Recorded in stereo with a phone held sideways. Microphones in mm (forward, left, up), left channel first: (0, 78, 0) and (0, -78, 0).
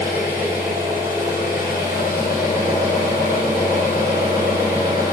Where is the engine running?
75° left (ahead or behind), 5 m.